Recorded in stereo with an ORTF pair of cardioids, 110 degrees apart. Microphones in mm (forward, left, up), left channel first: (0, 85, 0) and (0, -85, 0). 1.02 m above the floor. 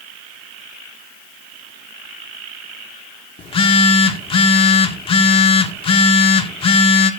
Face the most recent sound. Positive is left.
turn(degrees=35)